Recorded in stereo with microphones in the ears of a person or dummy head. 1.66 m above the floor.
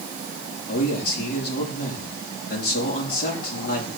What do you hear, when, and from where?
0.7 s a man speaking: 55° left (ahead or behind), 4 m